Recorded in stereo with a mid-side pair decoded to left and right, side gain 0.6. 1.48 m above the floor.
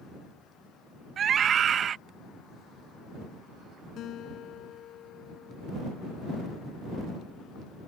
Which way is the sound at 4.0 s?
55° left.